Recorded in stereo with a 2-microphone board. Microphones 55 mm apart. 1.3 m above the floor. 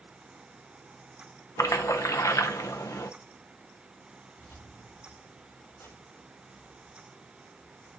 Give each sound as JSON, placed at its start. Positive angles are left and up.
{"t": 1.6, "sound": "a splash", "side_deg": 75, "distance_m": 0.8}
{"t": 4.4, "sound": "keys jangling", "side_deg": 65, "distance_m": 3.0}